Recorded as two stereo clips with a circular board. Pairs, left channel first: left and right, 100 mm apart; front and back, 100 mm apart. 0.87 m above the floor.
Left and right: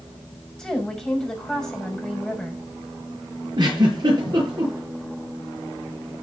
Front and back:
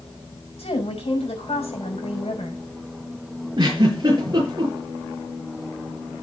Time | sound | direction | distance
0.6 | a woman speaking | 5° left | 6.5 m
3.6 | a giggle | 135° right | 6.5 m